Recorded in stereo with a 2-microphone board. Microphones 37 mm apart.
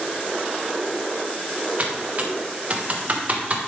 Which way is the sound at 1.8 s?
40° right (ahead or behind).